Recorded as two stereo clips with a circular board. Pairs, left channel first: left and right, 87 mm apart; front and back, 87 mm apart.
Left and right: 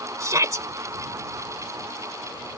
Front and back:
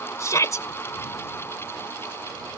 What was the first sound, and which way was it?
A shout, 45° right.